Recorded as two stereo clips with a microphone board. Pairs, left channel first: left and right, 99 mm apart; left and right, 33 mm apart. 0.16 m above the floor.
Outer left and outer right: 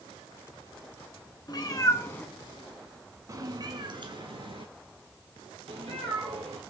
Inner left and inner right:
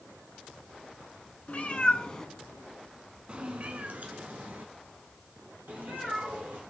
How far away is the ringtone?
No ringtone in this recording.